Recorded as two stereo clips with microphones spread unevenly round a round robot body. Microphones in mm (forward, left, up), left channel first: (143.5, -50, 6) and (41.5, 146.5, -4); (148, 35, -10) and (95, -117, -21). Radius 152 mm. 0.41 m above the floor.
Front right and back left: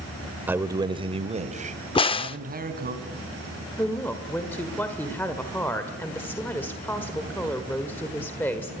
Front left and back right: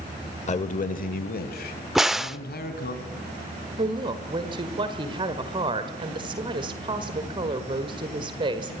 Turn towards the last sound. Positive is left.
turn(degrees=-140)